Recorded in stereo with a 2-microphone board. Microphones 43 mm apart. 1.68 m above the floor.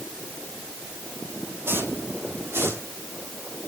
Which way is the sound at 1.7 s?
60° right (ahead or behind).